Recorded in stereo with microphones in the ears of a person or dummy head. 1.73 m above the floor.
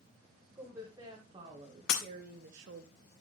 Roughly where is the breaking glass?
Left.